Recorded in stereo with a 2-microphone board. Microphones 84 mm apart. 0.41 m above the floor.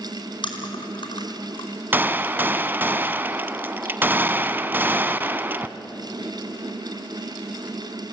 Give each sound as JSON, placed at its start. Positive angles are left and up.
{"t": 0.4, "sound": "chewing", "side_deg": 70, "distance_m": 4.5}
{"t": 1.9, "sound": "a gunshot", "side_deg": -25, "distance_m": 0.7}